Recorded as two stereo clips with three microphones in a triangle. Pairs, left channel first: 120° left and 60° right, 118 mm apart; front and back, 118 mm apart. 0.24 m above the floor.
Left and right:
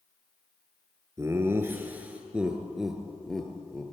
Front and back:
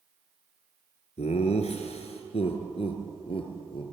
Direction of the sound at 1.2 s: 5° left.